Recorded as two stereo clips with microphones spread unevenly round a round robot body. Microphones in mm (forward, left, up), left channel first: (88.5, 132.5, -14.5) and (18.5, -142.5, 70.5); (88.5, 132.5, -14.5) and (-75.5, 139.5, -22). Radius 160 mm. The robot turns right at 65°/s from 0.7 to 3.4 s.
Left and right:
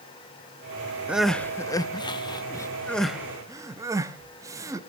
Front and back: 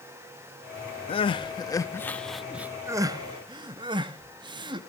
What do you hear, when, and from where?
1.1 s crying: 5° left, 0.5 m; by 4.9 s 155° left, 0.5 m